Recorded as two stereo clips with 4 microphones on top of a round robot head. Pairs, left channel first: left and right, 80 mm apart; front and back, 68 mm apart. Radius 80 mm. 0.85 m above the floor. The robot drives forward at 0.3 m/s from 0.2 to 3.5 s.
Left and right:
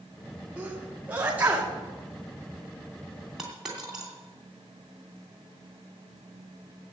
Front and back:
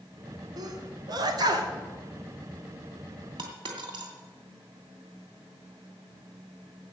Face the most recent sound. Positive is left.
turn(degrees=-175)